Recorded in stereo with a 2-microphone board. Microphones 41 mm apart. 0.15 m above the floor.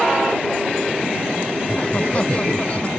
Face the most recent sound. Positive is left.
turn(degrees=35)  # may be behind; listen again after turning